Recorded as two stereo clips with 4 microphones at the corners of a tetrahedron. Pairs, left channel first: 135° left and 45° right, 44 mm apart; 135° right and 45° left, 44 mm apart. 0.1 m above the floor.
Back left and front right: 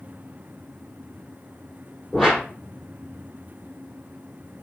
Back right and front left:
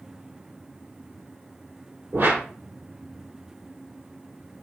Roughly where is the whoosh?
Ahead left.